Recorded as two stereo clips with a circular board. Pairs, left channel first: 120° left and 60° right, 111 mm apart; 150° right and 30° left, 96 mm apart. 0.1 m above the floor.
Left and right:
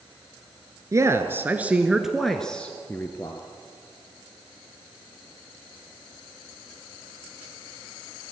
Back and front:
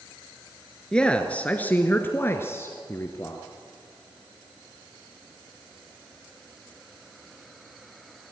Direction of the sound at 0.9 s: 80° right.